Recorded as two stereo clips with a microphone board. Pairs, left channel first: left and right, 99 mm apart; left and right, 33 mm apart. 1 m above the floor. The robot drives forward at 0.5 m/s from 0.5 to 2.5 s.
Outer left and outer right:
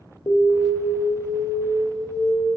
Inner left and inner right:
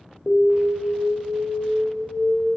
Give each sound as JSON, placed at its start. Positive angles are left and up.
{"t": 0.3, "sound": "an alarm", "side_deg": 45, "distance_m": 0.7}